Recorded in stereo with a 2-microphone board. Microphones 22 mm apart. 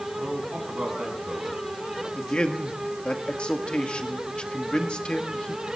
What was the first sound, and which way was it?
A man speaking, 75° right (ahead or behind).